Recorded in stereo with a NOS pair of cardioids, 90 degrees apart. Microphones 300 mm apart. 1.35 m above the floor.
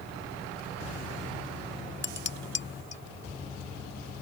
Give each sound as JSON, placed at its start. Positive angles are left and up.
{"t": 2.0, "sound": "dishes clattering", "azimuth_deg": 40}